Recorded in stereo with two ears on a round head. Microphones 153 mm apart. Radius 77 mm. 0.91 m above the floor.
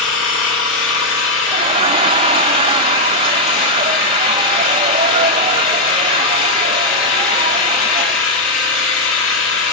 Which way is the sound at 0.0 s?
85° left.